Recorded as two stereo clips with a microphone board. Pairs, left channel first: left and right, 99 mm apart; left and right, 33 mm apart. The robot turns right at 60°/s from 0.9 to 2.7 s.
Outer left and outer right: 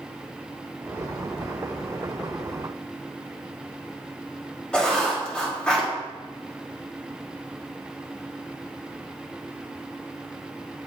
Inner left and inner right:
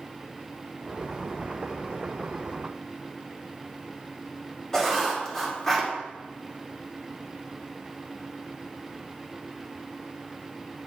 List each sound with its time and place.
4.7 s writing: 10° left (ahead or behind), 1.3 m